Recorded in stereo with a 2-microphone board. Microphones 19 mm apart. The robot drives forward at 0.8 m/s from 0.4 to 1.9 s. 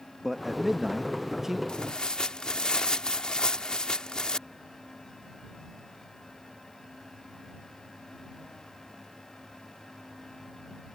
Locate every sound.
0.2 s a man speaking: 15° right (ahead or behind); by 1.6 s 25° right (ahead or behind)
1.7 s tearing paper: 65° left (ahead or behind); by 4.4 s 55° left (ahead or behind)